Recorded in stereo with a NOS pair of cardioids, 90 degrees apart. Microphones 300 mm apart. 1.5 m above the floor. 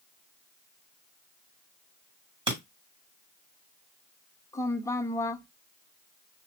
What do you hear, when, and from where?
2.5 s breaking glass: 15° right, 2.5 m
4.5 s a woman speaking: 10° left, 0.7 m